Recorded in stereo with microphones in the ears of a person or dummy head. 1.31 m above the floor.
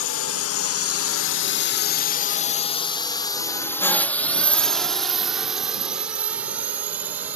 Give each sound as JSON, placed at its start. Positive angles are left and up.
{"t": 0.0, "sound": "a drone", "side_deg": 60}